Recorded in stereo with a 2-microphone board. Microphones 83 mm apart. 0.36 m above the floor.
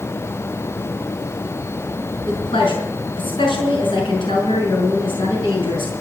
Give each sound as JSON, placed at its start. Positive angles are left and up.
{"t": 2.3, "sound": "a woman speaking", "side_deg": 70, "distance_m": 5.0}